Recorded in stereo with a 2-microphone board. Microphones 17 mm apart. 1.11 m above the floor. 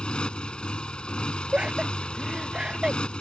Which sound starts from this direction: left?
A motorcycle, at 0.0 s.